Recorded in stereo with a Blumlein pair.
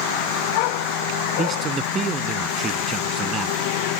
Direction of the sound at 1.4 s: 20° right.